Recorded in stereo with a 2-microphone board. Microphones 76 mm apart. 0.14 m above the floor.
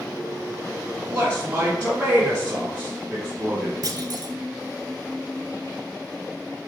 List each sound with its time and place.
1.1 s a man speaking: 15° right (ahead or behind), 1.8 m
3.8 s a clunk: 55° right (ahead or behind), 0.5 m